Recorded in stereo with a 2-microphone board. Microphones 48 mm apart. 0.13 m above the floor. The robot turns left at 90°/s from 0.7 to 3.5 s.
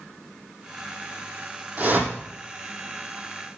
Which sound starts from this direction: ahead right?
A whoosh, at 1.8 s.